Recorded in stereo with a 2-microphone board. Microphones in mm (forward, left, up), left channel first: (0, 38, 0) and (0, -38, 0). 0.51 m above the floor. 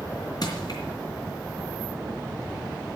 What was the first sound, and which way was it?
Crushing, 50° left (ahead or behind).